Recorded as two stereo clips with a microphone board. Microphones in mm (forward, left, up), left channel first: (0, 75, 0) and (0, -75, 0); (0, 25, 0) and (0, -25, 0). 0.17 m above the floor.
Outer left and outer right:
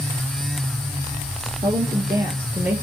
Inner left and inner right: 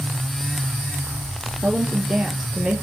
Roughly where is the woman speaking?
Right.